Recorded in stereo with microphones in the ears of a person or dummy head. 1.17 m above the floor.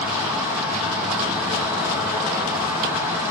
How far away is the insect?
About 3 m.